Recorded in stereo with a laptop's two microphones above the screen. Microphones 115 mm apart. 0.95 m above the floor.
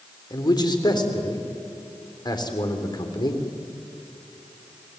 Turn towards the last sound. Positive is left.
turn(degrees=40)  # may be behind; listen again after turning